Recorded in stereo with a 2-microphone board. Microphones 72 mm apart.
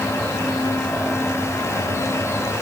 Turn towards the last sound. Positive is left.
No sound to turn to.